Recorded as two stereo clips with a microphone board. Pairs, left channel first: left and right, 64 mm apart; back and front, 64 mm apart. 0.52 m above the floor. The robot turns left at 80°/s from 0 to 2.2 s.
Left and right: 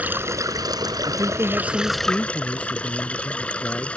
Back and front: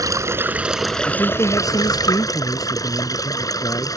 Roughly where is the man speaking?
Behind right.